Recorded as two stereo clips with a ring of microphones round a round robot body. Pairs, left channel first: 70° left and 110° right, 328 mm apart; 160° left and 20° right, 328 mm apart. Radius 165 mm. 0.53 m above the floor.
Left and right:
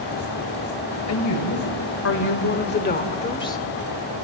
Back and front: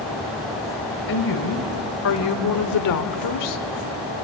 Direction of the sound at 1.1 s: 105° left.